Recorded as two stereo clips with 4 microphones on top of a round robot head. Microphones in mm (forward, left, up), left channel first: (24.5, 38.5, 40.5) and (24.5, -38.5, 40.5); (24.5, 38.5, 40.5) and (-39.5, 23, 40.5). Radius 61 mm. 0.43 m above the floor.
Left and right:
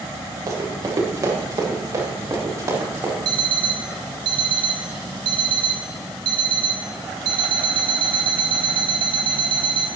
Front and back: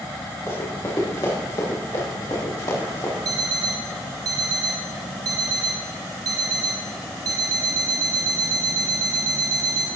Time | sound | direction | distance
0.5 | running footsteps | 45° right | 7 m
3.2 | an alarm clock | 125° right | 2 m